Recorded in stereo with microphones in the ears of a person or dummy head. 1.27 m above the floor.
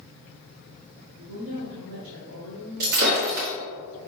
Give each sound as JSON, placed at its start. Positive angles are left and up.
{"t": 1.2, "sound": "a woman speaking", "side_deg": -85, "distance_m": 1.0}
{"t": 2.8, "sound": "breaking glass", "side_deg": -55, "distance_m": 1.1}